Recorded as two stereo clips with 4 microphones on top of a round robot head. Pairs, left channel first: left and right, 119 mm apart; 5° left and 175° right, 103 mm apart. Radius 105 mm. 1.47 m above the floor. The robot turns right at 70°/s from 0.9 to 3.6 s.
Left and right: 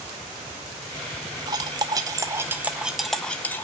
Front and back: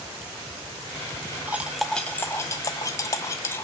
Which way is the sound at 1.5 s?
110° right.